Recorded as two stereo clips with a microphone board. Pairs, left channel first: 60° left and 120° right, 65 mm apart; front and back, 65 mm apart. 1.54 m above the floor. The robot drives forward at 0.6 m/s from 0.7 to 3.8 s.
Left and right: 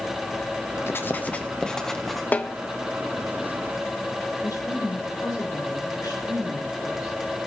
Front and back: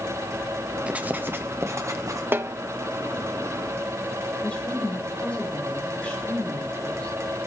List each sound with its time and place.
0.9 s writing: 110° left, 0.7 m; by 2.2 s 150° left, 1.2 m
2.3 s a snare drum: 125° left, 0.6 m; by 2.5 s 135° left, 0.7 m
4.4 s a woman speaking: 70° left, 5 m